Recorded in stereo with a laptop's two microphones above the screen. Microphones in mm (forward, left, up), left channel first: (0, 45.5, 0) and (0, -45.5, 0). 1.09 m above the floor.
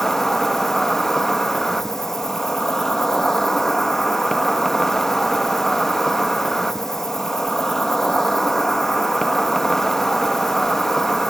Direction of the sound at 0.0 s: 5° left (ahead or behind).